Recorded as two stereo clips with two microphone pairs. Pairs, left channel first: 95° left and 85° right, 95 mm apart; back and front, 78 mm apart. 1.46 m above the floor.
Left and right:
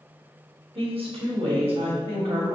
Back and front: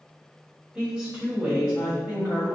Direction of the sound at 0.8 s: 75° right.